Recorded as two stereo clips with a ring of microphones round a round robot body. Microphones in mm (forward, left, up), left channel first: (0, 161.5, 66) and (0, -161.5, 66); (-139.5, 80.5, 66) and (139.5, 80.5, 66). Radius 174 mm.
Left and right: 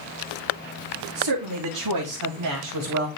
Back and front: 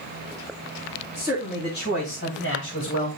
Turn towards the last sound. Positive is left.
turn(degrees=-135)